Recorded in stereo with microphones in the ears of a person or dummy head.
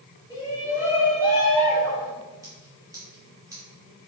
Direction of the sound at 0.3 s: 20° right (ahead or behind).